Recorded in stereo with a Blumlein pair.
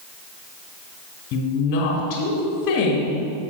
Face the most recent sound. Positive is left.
turn(degrees=45)